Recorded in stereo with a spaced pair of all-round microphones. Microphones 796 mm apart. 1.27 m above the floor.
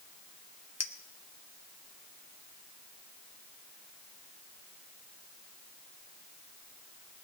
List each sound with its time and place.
0.8 s a clink: 20° left (ahead or behind), 0.6 m